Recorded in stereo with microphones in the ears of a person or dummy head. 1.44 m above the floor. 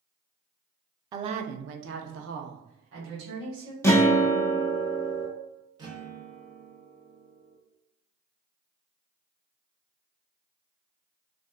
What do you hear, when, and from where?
1.1 s a woman speaking: 25° right (ahead or behind), 0.5 m; by 3.7 s 70° right (ahead or behind), 1.8 m
3.8 s a guitar: 10° left (ahead or behind), 0.5 m
5.8 s a guitar: 25° right (ahead or behind), 0.9 m